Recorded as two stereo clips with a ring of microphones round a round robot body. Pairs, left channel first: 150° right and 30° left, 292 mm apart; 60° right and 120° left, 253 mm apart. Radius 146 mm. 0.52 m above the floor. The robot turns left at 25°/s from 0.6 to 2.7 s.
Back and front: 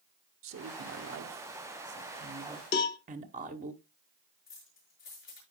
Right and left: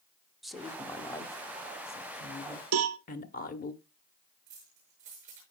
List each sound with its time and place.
0.4 s a woman speaking: 30° left, 1.1 m; by 3.7 s 20° right, 1.1 m
2.7 s a cowbell: 155° left, 0.7 m
4.5 s keys jangling: 170° right, 6.5 m